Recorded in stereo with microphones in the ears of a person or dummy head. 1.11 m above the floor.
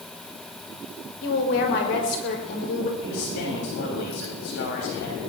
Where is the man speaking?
75° left (ahead or behind), 7 m.